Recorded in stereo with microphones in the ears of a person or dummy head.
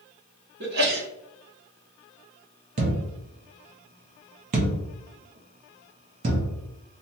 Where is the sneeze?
55° right (ahead or behind), 0.9 m.